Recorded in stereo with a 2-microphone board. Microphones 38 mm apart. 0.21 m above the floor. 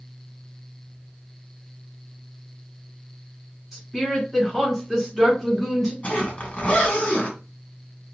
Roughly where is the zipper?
Left.